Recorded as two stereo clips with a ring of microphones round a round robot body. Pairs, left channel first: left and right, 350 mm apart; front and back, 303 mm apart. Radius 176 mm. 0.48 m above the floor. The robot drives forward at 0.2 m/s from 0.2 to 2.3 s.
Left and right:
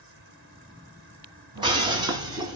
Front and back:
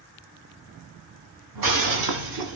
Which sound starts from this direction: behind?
Breaking glass, at 1.6 s.